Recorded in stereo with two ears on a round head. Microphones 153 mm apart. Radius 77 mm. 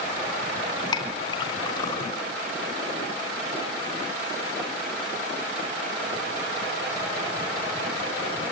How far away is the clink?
About 3 m.